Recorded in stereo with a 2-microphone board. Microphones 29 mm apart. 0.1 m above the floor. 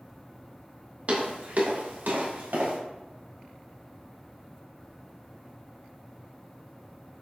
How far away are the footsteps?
About 1.4 m.